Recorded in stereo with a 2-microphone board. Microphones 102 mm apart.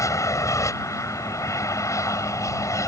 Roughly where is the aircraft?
Left.